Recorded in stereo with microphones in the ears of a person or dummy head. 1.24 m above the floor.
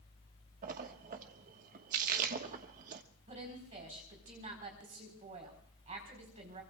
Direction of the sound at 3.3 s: 30° right (ahead or behind).